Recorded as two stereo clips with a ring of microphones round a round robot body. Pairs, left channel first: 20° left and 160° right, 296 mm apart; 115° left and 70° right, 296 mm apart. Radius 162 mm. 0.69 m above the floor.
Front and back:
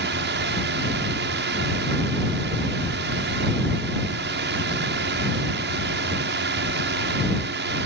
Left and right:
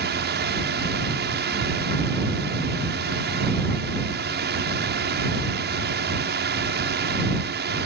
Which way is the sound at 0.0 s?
115° right.